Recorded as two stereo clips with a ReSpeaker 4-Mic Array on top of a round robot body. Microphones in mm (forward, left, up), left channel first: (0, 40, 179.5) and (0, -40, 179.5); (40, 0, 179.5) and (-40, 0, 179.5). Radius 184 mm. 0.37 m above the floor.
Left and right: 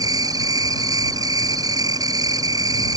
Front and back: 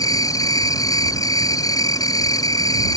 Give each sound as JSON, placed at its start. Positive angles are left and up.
{"t": 0.0, "sound": "an insect", "azimuth_deg": -45}